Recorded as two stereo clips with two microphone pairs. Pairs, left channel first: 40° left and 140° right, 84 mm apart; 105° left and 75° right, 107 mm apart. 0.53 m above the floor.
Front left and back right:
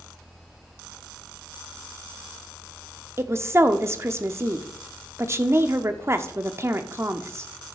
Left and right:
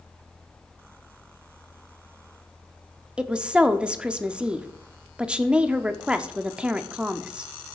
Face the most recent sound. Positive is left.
turn(degrees=-150)